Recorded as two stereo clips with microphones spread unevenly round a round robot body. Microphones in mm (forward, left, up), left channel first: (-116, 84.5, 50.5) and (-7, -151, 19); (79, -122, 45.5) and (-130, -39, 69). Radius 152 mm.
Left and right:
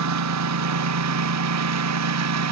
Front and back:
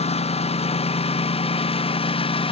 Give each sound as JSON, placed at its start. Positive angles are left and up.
{"t": 0.0, "sound": "a lawn mower", "azimuth_deg": -85}